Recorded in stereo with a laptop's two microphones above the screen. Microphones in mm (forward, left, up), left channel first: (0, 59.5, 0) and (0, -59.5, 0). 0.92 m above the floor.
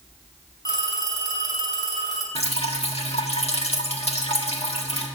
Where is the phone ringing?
35° left (ahead or behind), 4.5 m.